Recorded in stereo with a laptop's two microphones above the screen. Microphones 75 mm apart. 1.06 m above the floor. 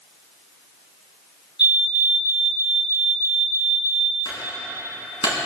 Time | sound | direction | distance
1.6 | a fire alarm | 10° right (ahead or behind) | 6 m
4.2 | a clunk | 80° left | 6 m